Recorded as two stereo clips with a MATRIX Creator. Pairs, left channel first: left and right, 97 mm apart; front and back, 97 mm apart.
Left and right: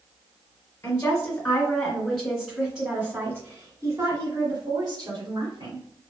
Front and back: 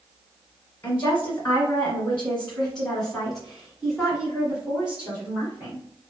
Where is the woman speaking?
55° left, 1.7 m; by 5.8 s 110° right, 2.5 m.